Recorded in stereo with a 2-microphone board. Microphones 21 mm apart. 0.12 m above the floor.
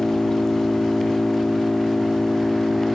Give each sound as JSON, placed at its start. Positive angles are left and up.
{"t": 0.0, "sound": "an engine running", "side_deg": 35}